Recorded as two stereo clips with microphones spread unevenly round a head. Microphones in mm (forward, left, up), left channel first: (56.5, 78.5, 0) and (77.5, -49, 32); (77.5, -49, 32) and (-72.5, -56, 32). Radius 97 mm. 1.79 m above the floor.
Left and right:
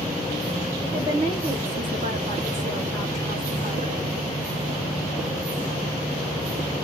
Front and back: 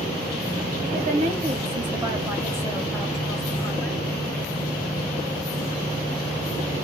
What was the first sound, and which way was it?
A woman speaking, 150° right.